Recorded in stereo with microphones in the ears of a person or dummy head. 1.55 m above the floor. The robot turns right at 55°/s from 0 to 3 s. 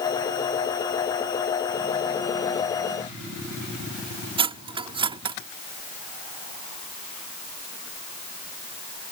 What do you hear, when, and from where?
4.4 s cutlery clinking: 20° right (ahead or behind)